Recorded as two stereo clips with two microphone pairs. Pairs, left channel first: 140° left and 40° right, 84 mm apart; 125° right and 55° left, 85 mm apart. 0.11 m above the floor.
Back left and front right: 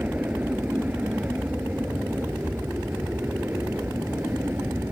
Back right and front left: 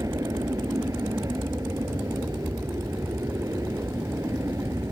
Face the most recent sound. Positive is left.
turn(degrees=15)